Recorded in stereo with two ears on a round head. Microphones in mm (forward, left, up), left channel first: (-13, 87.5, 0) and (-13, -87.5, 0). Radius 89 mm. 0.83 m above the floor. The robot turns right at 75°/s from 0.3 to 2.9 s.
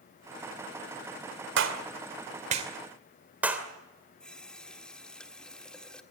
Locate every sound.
1.6 s a clap: 70° right (ahead or behind), 2.5 m; by 3.7 s 10° right (ahead or behind), 2.5 m
4.2 s a running tap: 5° left (ahead or behind), 1.4 m